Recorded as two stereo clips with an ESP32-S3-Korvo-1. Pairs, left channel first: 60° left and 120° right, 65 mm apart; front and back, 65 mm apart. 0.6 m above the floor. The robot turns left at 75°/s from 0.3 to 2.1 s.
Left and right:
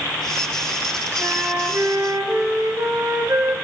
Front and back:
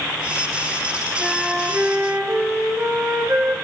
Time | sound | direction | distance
1.2 | a flute | 85° right | 5.5 m